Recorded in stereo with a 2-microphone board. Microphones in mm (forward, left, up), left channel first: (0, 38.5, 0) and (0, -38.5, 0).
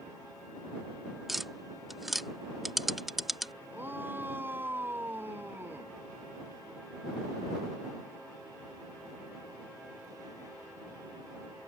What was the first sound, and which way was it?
Tapping, 5° right (ahead or behind).